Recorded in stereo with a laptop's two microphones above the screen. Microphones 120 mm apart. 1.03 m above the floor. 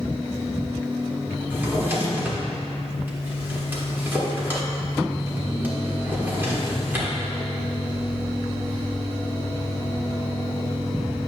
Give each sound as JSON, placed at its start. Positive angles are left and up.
{"t": 1.5, "sound": "a drawer", "side_deg": -20, "distance_m": 1.1}